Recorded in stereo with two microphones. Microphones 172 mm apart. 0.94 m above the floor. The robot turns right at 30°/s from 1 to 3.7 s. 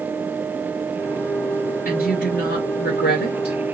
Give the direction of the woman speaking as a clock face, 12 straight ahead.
10 o'clock.